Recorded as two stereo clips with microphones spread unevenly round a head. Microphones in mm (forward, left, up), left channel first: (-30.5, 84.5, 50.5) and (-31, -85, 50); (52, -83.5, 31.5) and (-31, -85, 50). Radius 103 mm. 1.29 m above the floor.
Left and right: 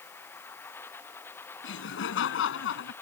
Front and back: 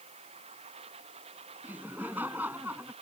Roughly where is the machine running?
Behind.